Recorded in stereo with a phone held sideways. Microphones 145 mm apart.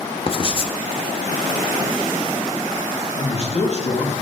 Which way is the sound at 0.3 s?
40° left (ahead or behind).